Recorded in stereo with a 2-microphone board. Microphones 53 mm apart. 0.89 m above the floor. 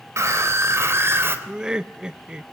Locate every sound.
0.2 s a scream: 60° right (ahead or behind), 3.5 m; by 1.4 s 45° right (ahead or behind), 3 m
1.5 s laughter: 15° right (ahead or behind), 0.6 m